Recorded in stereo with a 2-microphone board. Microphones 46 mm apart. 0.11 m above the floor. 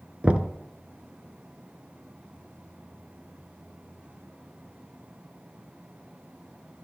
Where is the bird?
I don't hear a bird.